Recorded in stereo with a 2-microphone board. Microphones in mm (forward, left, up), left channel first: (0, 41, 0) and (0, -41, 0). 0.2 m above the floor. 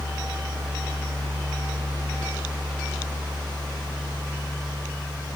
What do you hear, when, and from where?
Only background noise.